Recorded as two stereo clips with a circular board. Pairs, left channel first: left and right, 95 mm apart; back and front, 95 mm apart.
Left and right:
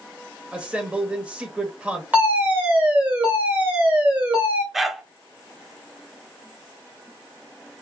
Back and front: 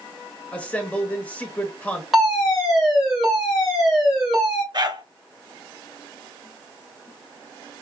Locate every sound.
0.5 s a man speaking: 135° right, 0.9 m
2.1 s a fire alarm: 90° right, 2 m
4.7 s a dog barking: 5° right, 0.6 m